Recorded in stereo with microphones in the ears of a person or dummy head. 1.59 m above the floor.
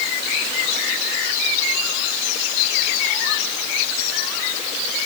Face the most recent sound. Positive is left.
No sound to turn to.